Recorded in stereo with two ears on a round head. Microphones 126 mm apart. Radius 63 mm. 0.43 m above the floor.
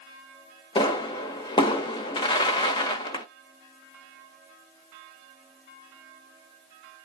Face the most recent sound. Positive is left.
turn(degrees=35)  # may be behind; listen again after turning